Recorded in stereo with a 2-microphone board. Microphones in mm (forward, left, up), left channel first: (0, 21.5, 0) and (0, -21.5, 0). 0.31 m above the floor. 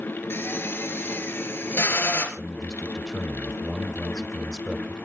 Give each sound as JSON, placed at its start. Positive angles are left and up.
{"t": 0.3, "sound": "a drill", "side_deg": 65, "distance_m": 3.5}
{"t": 2.4, "sound": "a man speaking", "side_deg": 0, "distance_m": 1.4}